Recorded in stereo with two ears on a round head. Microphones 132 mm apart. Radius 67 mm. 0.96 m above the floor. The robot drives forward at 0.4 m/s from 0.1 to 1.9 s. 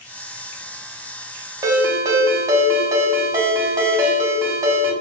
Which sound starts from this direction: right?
A ringtone, at 1.6 s.